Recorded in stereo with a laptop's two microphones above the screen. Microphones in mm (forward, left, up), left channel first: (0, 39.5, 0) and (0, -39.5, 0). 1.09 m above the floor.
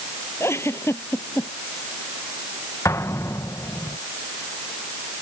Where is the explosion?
40° left (ahead or behind).